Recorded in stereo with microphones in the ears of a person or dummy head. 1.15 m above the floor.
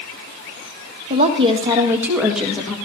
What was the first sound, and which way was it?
A woman speaking, 35° right (ahead or behind).